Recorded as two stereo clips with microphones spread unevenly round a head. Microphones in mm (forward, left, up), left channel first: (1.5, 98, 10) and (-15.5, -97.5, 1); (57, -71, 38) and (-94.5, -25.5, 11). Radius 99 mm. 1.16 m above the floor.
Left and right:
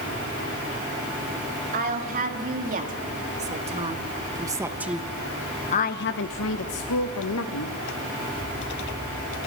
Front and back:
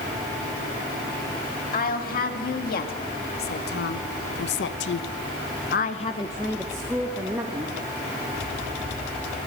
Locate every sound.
1.7 s a woman speaking: 45° right, 3 m; by 7.8 s 90° left, 1.5 m